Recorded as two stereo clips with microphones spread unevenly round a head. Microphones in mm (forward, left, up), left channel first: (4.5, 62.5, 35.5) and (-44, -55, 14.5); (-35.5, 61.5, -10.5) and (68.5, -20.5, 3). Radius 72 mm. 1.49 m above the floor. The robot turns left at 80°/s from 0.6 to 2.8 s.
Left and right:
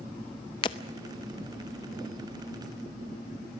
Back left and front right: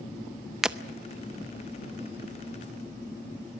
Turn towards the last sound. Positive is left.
turn(degrees=-130)